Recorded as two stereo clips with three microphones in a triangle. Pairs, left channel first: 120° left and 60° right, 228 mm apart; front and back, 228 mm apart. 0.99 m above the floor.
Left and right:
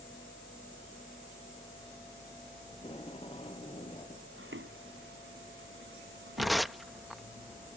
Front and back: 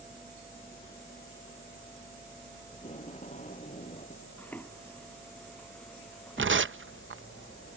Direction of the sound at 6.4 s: 150° right.